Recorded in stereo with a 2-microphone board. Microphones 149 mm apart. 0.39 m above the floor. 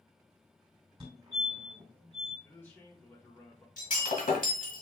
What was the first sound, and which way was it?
A fire alarm, 35° right (ahead or behind).